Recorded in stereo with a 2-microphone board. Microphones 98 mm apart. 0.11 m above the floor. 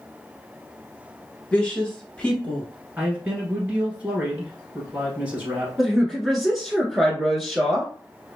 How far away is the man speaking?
About 1.6 m.